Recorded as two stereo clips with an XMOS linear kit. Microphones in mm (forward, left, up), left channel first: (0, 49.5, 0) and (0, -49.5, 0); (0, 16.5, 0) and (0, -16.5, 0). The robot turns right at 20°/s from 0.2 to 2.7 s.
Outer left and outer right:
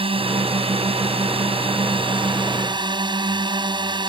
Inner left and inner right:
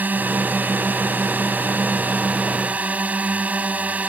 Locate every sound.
0.0 s a drone: 105° right; by 4.1 s 55° right